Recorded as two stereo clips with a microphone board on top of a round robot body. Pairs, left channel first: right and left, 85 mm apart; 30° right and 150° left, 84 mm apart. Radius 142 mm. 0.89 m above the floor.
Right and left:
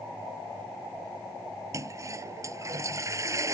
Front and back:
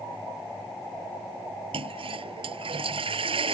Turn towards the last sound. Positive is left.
turn(degrees=145)